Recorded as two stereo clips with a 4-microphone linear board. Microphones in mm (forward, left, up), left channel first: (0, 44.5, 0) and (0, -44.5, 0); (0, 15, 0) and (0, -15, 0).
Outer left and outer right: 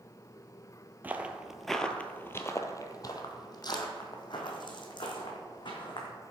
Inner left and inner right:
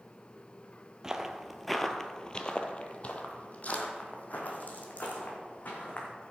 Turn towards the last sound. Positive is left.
turn(degrees=55)  # may be behind; listen again after turning